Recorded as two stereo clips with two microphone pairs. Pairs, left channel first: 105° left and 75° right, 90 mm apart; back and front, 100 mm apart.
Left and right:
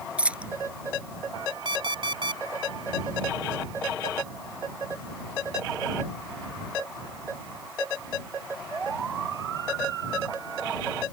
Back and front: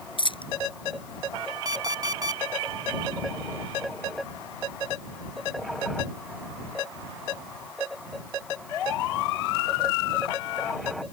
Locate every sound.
0.2 s a dropped coin: 155° right
1.6 s an alarm clock: 50° right